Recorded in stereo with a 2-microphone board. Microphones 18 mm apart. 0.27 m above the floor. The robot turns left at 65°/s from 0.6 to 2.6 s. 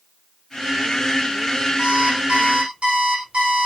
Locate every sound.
1.8 s an alarm clock: 45° right, 9.5 m; by 3.7 s 100° right, 9.5 m